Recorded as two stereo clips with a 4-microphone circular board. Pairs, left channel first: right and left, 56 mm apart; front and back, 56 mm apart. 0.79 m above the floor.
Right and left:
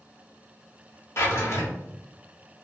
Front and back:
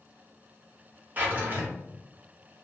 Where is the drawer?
125° right, 0.8 m.